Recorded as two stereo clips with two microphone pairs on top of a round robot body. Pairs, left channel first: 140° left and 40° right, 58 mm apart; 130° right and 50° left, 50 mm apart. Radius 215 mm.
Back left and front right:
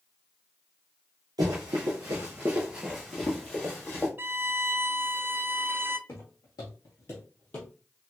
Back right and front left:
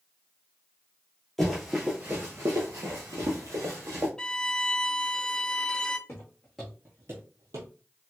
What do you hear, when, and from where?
1.4 s running footsteps: 45° right, 0.8 m; by 4.1 s 75° left, 1.1 m
4.2 s a violin: 60° right, 0.6 m
6.1 s footsteps: 175° right, 0.6 m; by 7.7 s 70° left, 0.9 m